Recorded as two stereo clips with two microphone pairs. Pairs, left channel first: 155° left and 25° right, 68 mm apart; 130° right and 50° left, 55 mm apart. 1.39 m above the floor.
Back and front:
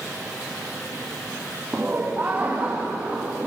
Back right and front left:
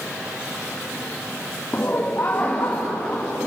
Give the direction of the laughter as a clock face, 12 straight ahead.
3 o'clock.